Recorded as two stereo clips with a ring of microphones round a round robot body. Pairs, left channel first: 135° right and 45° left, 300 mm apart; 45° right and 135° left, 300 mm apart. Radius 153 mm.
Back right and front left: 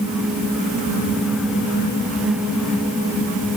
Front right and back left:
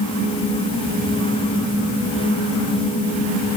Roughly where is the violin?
I don't hear a violin.